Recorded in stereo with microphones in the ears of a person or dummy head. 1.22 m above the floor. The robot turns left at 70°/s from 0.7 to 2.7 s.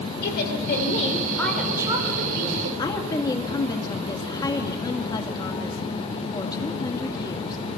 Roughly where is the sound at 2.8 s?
Centre.